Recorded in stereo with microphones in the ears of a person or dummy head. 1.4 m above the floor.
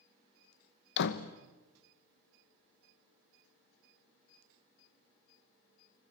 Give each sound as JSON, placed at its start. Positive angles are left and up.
{"t": 1.0, "sound": "a door slam", "side_deg": 65, "distance_m": 1.1}